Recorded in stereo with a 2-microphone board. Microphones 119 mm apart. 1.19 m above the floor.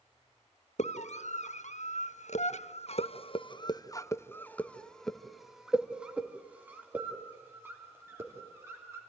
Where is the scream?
70° left (ahead or behind), 1.9 m; by 9.0 s 25° right (ahead or behind), 4 m.